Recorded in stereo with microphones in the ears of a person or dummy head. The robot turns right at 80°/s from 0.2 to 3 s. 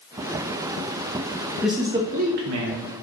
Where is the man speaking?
175° left, 0.6 m; by 2.9 s 80° right, 0.6 m.